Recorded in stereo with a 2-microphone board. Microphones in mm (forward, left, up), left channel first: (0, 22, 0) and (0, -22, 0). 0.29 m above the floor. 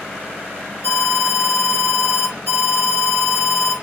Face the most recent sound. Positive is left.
turn(degrees=60)  # may be behind; listen again after turning